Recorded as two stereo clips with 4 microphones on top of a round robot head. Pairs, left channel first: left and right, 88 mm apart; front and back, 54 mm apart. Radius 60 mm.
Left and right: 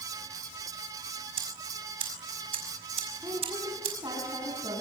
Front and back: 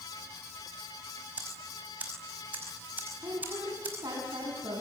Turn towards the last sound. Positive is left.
turn(degrees=-150)